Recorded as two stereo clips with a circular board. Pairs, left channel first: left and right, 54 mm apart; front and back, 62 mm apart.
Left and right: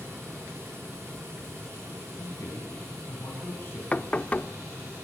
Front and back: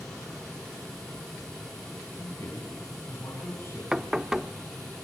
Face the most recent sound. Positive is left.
turn(degrees=110)